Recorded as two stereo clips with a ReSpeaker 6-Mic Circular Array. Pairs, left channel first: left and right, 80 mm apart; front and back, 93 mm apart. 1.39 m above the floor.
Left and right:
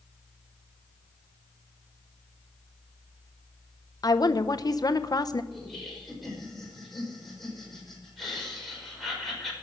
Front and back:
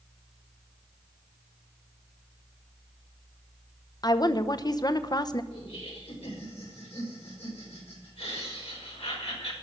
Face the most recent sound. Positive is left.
turn(degrees=0)